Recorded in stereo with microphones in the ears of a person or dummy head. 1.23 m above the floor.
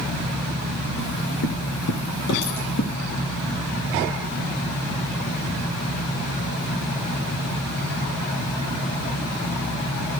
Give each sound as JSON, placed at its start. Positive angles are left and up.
{"t": 1.0, "sound": "footsteps", "side_deg": 45, "distance_m": 1.6}